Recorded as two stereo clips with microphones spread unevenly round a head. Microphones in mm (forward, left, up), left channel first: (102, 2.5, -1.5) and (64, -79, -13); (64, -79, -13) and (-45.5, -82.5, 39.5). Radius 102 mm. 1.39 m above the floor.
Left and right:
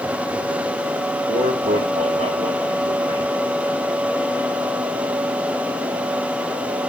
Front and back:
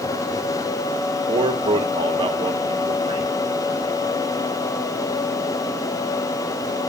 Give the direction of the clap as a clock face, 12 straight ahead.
No clap in this recording.